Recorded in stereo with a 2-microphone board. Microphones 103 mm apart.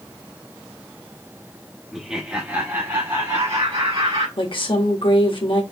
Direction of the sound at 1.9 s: Centre (ahead or behind).